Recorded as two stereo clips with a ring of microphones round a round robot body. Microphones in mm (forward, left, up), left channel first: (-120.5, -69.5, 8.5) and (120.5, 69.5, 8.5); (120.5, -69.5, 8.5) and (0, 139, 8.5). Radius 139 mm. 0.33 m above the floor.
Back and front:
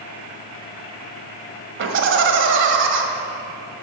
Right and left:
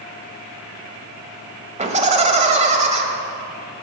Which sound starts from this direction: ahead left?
Laughter, at 1.8 s.